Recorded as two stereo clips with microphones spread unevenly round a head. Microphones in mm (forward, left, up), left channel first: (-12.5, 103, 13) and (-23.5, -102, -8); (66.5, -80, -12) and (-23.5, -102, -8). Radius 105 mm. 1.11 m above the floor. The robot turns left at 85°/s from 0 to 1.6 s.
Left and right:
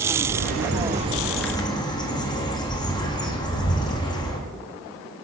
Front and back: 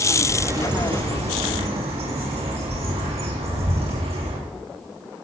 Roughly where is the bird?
Right.